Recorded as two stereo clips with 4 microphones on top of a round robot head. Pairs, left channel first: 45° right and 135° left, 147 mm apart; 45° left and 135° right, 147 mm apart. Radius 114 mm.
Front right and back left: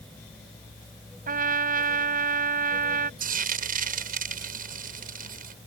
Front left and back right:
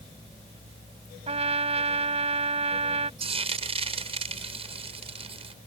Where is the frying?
170° left.